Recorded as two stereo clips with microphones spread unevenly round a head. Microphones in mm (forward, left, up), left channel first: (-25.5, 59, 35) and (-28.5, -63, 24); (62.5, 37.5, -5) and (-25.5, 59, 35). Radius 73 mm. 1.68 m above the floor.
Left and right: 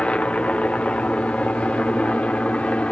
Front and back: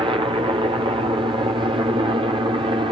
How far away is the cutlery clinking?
No cutlery clinking in this recording.